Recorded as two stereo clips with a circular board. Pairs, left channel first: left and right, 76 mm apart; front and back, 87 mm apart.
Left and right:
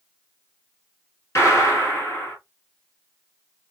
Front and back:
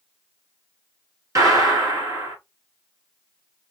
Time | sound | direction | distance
1.4 | a gunshot | 135° left | 2.5 m